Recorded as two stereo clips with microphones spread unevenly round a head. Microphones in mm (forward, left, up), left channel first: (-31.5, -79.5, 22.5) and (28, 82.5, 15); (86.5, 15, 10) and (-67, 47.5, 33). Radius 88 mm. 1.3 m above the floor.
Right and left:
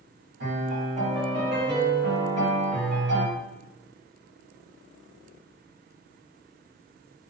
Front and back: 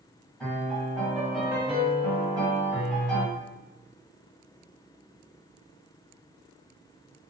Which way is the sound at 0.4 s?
85° left.